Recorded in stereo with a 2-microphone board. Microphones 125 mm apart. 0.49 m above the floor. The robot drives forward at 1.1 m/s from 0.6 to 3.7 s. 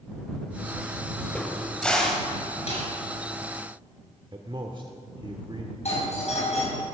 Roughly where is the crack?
Centre.